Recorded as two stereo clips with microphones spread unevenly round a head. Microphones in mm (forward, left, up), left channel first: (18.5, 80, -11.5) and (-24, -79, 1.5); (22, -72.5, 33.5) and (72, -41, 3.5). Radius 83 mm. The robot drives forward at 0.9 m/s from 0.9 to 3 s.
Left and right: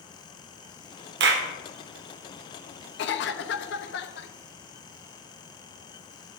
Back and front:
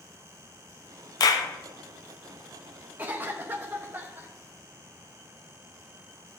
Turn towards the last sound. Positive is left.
turn(degrees=90)